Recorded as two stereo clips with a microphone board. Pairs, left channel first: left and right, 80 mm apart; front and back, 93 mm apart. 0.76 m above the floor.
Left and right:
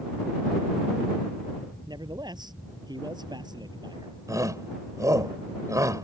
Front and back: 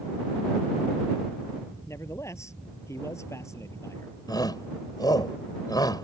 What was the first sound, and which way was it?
A man speaking, 60° right.